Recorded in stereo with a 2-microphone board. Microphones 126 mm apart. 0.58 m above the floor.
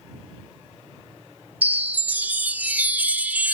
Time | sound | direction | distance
1.6 | a chime | 15° right (ahead or behind) | ?